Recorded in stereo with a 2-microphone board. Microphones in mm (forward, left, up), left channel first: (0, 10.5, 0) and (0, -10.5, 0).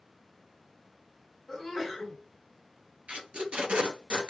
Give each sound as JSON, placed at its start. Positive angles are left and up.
{"t": 1.5, "sound": "a sneeze", "side_deg": -5, "distance_m": 1.5}
{"t": 3.1, "sound": "tape being pulled", "side_deg": -70, "distance_m": 1.3}